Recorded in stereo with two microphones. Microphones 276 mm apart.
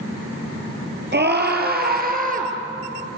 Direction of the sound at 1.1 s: 40° right (ahead or behind).